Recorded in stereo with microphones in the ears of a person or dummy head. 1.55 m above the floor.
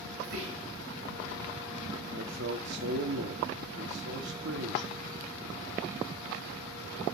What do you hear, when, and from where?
0.2 s whispering: 60° right (ahead or behind), 2 m
2.1 s a man speaking: 60° right (ahead or behind), 1.0 m